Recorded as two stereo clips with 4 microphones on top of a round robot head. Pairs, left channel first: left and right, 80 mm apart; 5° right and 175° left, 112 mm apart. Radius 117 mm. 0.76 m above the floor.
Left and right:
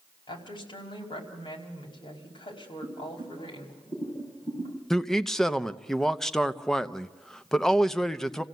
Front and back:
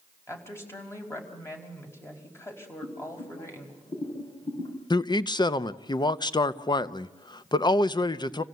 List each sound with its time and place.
0.3 s a woman speaking: 65° left, 5 m
2.8 s boiling: 35° left, 5.5 m
4.9 s a man speaking: 10° left, 0.9 m